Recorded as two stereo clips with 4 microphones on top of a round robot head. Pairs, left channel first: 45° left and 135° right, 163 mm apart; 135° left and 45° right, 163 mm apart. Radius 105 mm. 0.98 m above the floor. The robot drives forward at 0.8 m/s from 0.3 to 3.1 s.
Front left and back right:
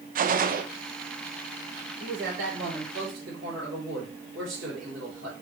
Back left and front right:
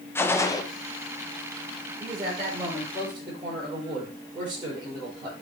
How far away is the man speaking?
About 4.5 m.